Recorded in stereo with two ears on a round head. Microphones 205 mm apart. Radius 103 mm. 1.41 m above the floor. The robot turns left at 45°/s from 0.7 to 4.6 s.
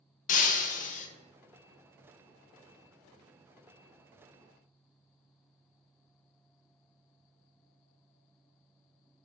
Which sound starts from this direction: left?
Breaking glass, at 0.3 s.